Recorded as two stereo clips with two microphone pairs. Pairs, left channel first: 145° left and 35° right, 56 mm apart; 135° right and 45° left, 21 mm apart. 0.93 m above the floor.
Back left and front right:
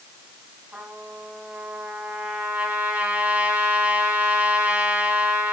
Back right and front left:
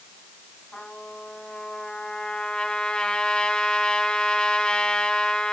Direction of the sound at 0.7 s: 100° right.